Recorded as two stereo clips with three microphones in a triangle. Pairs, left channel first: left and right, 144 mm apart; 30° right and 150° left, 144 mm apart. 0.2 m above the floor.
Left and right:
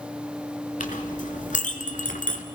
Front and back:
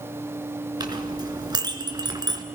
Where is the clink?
95° left, 1.7 m.